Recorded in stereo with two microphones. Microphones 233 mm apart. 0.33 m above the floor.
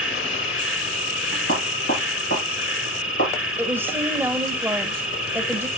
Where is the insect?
60° left (ahead or behind), 1.4 m.